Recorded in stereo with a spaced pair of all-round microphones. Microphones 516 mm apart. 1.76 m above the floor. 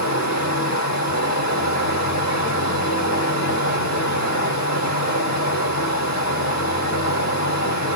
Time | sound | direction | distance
0.0 | running water | 30° left (ahead or behind) | 1.9 m